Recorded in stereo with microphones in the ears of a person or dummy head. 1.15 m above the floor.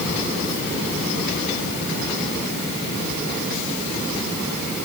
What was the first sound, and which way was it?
Only background noise.